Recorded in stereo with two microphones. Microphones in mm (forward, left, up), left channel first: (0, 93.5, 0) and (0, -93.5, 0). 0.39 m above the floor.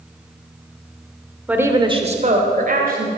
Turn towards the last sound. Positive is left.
turn(degrees=-55)  # may be behind; listen again after turning